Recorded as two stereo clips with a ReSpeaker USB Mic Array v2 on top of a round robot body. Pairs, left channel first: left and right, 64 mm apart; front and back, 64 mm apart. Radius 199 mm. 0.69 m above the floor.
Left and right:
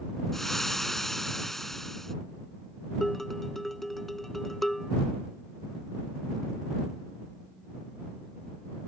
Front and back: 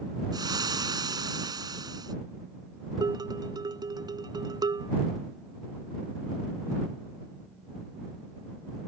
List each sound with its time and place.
0.3 s frying: 175° left
3.0 s dishes clattering: 175° left